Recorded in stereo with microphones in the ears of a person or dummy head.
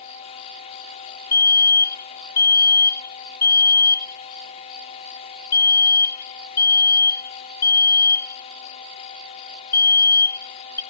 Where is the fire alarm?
10° left (ahead or behind).